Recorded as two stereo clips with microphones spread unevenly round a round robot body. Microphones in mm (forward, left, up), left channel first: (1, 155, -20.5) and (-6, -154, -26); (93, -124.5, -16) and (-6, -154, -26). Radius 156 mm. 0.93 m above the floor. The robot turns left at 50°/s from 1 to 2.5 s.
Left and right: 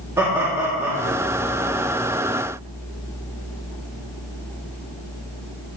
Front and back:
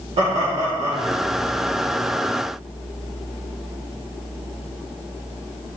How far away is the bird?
No bird in this recording.